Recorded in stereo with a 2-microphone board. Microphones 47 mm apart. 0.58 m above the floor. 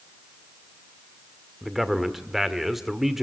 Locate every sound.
1.6 s a man speaking: 5° right (ahead or behind), 1.5 m